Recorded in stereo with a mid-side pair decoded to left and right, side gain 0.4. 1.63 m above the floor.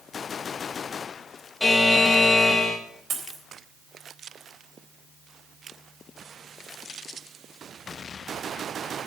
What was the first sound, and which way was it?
A buzzer, 25° left.